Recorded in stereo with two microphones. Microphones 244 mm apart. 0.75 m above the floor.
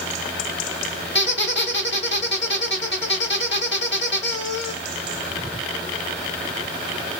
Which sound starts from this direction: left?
A squeak, at 1.1 s.